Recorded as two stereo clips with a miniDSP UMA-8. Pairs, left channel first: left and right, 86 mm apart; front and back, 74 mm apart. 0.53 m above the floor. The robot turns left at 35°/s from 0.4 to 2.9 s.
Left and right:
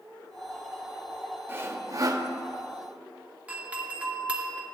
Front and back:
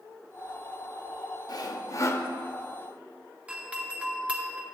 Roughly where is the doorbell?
Behind right.